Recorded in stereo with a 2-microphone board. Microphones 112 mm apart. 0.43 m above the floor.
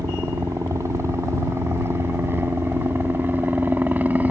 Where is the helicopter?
30° right (ahead or behind); by 4.3 s 15° right (ahead or behind).